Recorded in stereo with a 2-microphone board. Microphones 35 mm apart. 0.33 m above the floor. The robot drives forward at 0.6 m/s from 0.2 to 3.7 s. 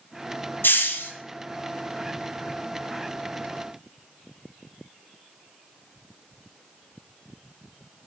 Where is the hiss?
75° left (ahead or behind), 0.6 m; by 1.1 s 70° left (ahead or behind), 0.7 m.